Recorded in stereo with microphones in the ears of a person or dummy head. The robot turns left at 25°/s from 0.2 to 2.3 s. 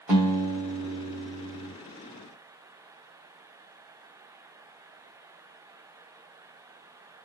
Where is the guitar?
170° right, 1.4 m; by 1.7 s 150° left, 1.4 m.